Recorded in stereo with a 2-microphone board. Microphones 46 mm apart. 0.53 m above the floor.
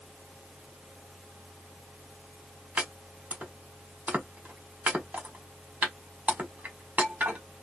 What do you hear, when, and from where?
2.8 s chopping: 35° right (ahead or behind), 1.2 m